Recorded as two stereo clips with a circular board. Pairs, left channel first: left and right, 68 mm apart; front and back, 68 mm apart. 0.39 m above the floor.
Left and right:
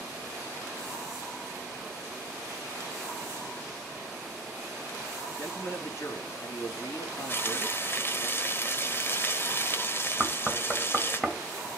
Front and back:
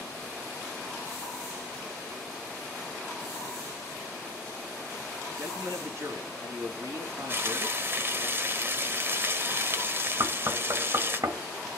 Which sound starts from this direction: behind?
Knocking, at 10.2 s.